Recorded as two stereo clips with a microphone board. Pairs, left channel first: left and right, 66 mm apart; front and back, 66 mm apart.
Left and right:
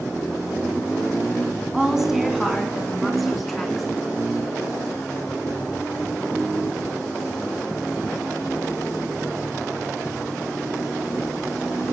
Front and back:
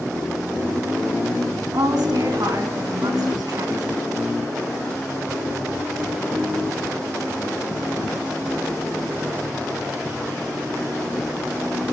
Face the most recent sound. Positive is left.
turn(degrees=175)